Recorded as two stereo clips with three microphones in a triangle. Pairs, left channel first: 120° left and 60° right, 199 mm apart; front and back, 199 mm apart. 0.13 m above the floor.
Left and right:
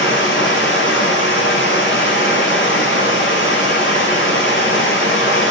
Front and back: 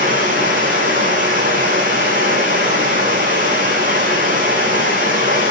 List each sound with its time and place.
0.0 s running water: 135° left, 8.5 m